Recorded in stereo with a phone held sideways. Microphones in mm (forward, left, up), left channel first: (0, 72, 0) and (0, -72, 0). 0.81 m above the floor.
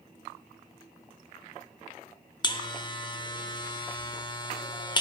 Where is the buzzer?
30° left (ahead or behind), 0.6 m.